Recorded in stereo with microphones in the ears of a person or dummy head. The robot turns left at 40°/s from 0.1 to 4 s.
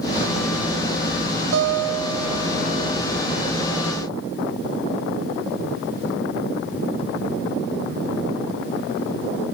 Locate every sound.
1.5 s a guitar: 80° right, 4 m; by 3.0 s 140° right, 4 m